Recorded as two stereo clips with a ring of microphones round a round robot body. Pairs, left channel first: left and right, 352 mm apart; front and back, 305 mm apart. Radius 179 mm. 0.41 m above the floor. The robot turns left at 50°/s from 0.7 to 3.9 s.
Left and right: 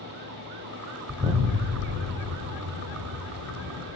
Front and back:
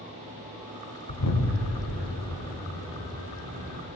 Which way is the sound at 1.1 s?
5° right.